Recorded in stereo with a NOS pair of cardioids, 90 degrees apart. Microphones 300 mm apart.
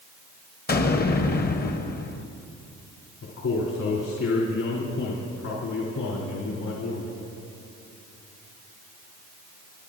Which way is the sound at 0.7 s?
30° left.